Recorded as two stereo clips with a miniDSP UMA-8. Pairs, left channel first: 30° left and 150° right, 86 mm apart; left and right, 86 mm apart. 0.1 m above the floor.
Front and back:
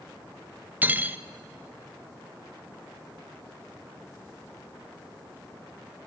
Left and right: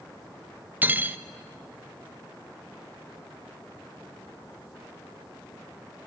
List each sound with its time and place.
0.8 s cutlery clinking: 120° right, 0.7 m